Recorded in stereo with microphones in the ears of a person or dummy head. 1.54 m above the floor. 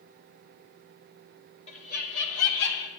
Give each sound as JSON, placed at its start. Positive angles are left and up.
{"t": 1.7, "sound": "laughter", "side_deg": 35, "distance_m": 1.1}